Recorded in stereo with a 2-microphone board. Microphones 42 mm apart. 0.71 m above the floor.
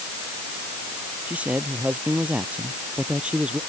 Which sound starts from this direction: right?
A man speaking, at 1.3 s.